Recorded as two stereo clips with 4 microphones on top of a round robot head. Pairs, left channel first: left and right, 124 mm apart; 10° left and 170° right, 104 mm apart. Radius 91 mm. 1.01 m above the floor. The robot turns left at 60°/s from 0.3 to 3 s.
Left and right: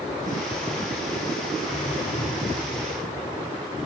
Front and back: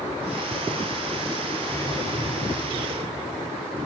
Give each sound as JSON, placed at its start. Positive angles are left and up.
{"t": 1.6, "sound": "a whoosh", "azimuth_deg": 80, "distance_m": 3.0}